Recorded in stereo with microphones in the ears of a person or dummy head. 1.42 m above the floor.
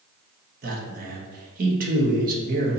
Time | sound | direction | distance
0.6 | a man speaking | 45° right (ahead or behind) | 1.0 m